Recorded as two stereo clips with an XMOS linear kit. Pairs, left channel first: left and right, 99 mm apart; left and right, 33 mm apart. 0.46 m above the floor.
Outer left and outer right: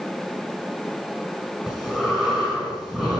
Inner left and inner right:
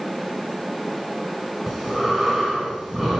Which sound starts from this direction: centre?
Breathing, at 1.7 s.